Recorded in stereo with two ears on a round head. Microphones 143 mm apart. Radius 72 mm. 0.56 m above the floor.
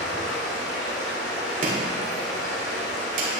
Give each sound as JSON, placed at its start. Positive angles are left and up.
{"t": 0.0, "sound": "running water", "side_deg": 80, "distance_m": 4.0}
{"t": 1.6, "sound": "chopping", "side_deg": -55, "distance_m": 2.5}